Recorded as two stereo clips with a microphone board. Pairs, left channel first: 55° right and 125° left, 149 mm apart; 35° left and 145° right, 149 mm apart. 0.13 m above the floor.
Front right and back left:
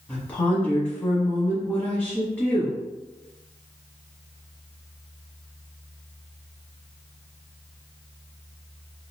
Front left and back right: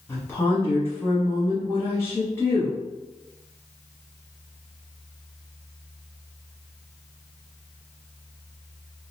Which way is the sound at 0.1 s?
5° left.